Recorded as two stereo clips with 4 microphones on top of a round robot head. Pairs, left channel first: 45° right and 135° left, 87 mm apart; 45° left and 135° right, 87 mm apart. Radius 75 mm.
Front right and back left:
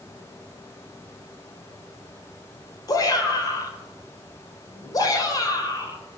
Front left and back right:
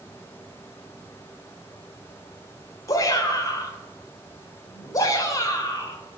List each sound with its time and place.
2.9 s a shout: straight ahead, 2.5 m